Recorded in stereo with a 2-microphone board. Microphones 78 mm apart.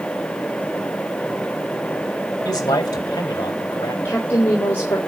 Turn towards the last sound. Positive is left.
turn(degrees=30)  # may be behind; listen again after turning